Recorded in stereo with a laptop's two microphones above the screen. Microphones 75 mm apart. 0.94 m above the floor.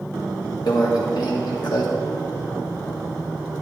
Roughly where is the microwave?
Left.